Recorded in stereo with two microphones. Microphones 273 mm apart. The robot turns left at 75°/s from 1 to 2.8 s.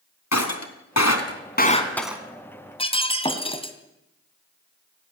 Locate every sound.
0.3 s breaking glass: 75° left (ahead or behind), 3 m; by 2.2 s 10° right (ahead or behind), 3 m
2.8 s breaking glass: 20° left (ahead or behind), 2.5 m